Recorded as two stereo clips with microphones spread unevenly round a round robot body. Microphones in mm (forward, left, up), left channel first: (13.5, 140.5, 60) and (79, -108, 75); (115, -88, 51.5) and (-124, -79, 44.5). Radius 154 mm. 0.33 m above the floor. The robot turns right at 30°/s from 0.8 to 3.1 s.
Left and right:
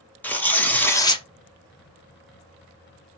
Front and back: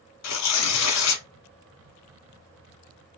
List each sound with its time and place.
0.2 s tearing paper: 20° left, 0.8 m; by 1.2 s 35° left, 0.8 m